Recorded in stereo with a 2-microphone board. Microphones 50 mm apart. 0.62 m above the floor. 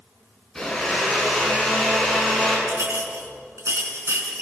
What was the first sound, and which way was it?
A blender, 5° left (ahead or behind).